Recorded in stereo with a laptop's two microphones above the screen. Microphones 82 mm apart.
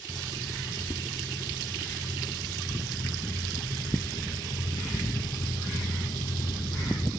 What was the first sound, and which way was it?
Footsteps, 30° left (ahead or behind).